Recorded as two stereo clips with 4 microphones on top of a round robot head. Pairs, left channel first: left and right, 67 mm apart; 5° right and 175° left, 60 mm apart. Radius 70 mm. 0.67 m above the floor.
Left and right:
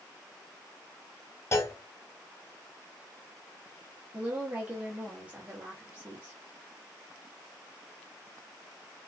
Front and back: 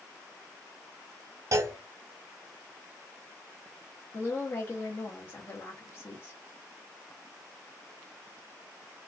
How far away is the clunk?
About 0.7 m.